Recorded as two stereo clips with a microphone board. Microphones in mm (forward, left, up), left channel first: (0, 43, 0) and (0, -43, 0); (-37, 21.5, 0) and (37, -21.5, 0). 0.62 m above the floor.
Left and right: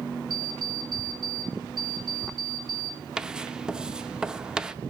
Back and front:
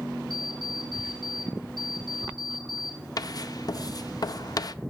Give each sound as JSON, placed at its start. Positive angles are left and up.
{"t": 0.3, "sound": "an alarm clock", "azimuth_deg": -65, "distance_m": 2.5}
{"t": 3.2, "sound": "writing", "azimuth_deg": -170, "distance_m": 0.5}